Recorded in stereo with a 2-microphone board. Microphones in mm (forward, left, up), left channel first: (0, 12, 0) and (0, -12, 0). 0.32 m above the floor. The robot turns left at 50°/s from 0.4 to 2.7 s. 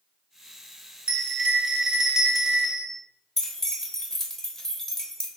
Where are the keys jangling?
20° left (ahead or behind), 0.6 m.